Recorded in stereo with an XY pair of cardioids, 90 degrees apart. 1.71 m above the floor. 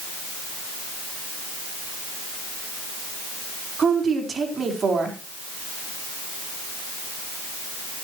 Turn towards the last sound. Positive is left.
turn(degrees=-50)